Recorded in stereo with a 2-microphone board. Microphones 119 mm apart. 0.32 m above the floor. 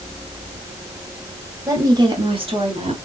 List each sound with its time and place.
1.7 s a woman speaking: 25° right (ahead or behind), 2.0 m; by 2.9 s 55° right (ahead or behind), 2.5 m